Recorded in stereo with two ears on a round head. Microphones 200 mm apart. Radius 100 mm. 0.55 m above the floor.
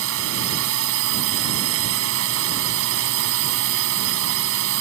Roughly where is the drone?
Right.